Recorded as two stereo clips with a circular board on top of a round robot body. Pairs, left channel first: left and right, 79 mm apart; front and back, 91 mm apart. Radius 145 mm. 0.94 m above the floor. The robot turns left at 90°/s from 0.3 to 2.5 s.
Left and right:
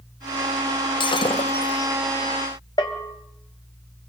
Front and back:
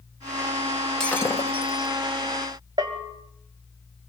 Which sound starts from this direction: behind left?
A bell, at 2.8 s.